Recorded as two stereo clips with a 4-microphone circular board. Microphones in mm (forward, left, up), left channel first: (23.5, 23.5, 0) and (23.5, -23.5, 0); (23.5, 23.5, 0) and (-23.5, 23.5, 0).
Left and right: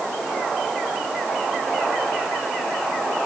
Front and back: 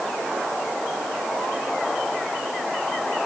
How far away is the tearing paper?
No tearing paper in this recording.